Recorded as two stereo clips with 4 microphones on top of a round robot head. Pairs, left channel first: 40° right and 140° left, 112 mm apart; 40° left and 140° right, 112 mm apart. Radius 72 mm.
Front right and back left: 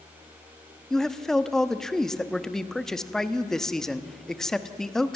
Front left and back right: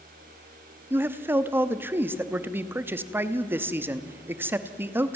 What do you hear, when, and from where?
0.9 s a man speaking: 115° right, 1.0 m